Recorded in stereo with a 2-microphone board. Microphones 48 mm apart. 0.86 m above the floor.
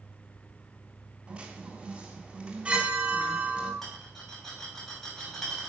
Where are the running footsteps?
No running footsteps in this recording.